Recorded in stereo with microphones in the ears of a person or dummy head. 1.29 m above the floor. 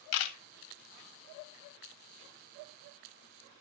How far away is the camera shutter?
About 0.9 m.